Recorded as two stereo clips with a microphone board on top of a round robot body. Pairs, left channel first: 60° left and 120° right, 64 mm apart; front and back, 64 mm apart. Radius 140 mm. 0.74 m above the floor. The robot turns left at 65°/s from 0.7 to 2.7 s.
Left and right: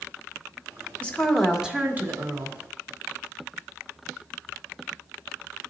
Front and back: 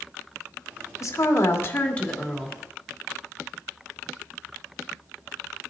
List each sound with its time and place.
1.0 s a woman speaking: straight ahead, 1.4 m; by 2.6 s 105° right, 1.4 m